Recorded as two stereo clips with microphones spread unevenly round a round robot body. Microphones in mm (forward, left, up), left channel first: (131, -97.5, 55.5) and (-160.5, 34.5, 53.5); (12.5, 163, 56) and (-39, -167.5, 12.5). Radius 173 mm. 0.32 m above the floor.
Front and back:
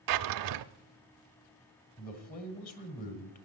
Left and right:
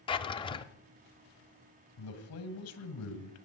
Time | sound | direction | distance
0.1 | a drawer | 160° left | 0.6 m
2.0 | a man speaking | 35° left | 2 m